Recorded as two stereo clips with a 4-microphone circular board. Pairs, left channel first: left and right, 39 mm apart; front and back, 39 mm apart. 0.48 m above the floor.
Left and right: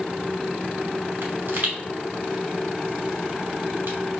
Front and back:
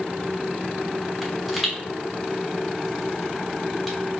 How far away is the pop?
About 1.7 m.